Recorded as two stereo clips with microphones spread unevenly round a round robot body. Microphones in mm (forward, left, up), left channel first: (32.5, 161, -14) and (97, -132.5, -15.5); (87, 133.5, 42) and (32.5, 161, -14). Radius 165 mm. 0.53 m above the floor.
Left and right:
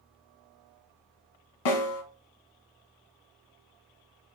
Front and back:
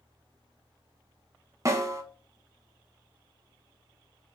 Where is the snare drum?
100° left, 1.1 m.